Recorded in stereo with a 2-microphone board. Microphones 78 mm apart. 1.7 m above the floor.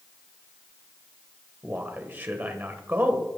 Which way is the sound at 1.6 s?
25° right (ahead or behind).